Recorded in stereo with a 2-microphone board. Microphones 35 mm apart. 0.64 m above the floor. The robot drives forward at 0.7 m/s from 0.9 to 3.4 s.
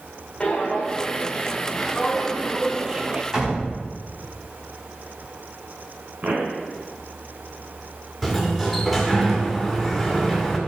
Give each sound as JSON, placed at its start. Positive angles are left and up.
{"t": 0.4, "sound": "footsteps", "side_deg": 15, "distance_m": 3.0}
{"t": 3.3, "sound": "a door slam", "side_deg": -25, "distance_m": 3.5}
{"t": 6.2, "sound": "a pop", "side_deg": -50, "distance_m": 1.8}
{"t": 8.2, "sound": "a sliding door", "side_deg": 0, "distance_m": 1.9}